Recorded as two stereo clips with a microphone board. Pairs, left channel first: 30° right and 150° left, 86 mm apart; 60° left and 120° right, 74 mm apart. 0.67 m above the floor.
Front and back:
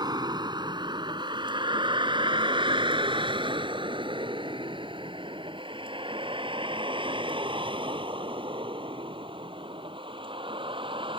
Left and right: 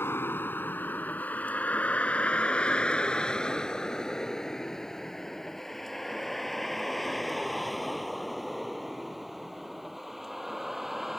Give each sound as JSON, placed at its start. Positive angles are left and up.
{"t": 0.0, "sound": "a vehicle", "azimuth_deg": 115}